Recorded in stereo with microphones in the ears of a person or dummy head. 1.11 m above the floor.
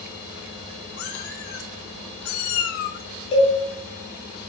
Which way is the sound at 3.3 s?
30° left (ahead or behind).